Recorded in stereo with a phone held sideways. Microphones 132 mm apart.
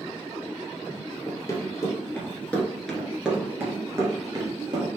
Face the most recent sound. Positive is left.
turn(degrees=-40)  # may be behind; listen again after turning